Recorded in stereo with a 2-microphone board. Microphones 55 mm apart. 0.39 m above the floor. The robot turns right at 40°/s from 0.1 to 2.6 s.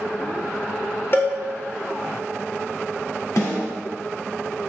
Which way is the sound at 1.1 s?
45° left (ahead or behind).